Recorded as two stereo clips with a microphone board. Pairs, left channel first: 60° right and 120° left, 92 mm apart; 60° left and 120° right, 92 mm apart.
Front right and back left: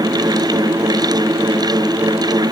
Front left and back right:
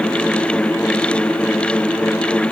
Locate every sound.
Only background noise.